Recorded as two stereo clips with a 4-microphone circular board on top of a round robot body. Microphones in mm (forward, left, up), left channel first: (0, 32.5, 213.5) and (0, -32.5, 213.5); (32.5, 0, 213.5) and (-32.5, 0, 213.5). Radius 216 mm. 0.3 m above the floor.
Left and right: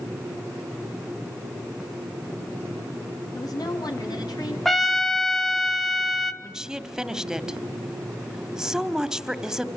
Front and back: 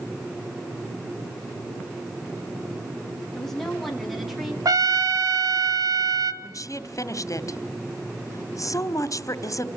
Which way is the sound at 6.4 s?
10° right.